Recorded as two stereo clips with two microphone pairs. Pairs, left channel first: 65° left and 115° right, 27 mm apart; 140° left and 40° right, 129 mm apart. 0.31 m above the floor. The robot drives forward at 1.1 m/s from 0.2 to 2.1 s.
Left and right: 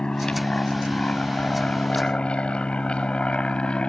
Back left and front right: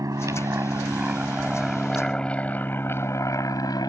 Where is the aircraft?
15° left; by 3.9 s 90° left.